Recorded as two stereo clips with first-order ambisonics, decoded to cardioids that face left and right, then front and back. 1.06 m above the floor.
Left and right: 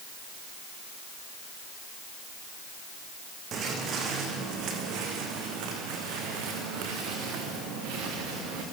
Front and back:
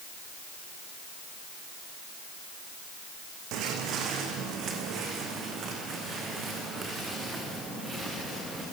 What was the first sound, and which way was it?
Footsteps, 145° right.